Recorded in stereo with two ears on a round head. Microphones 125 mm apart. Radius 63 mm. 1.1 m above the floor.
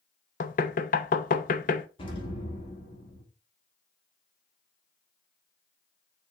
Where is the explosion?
40° left (ahead or behind), 2.5 m.